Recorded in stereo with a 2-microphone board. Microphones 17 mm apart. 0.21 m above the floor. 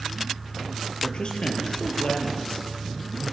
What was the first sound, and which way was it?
A man speaking, 55° left (ahead or behind).